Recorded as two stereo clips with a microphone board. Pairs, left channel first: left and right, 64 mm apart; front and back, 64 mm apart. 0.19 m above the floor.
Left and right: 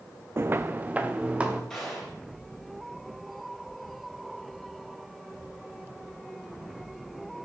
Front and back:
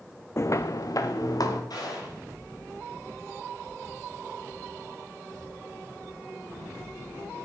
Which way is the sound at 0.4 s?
45° right.